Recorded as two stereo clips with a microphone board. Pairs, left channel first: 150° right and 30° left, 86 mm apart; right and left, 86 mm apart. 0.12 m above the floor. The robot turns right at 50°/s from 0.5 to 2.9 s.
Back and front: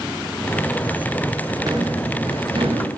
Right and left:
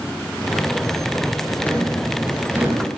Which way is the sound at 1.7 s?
15° right.